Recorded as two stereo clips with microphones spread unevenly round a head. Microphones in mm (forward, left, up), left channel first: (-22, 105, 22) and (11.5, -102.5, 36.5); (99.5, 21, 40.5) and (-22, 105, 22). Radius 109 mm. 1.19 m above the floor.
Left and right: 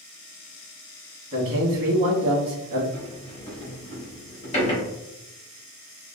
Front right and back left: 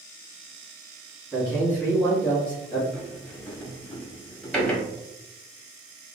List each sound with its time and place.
1.3 s a man speaking: 115° right, 1.4 m
2.9 s a sliding door: 40° left, 1.3 m